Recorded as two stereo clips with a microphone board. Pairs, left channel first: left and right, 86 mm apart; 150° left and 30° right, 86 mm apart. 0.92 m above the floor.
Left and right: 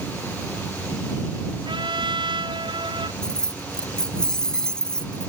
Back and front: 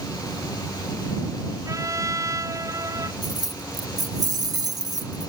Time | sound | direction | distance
1.6 | a trumpet | 80° right | ?
3.2 | keys jangling | 10° left | ?